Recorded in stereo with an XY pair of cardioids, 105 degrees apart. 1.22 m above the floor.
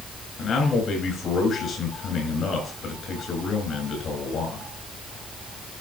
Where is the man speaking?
55° left, 6 m.